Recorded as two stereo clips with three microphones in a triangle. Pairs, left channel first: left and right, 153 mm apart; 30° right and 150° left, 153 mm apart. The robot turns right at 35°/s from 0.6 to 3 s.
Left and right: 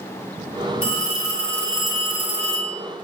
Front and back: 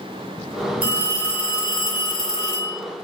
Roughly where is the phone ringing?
Behind left.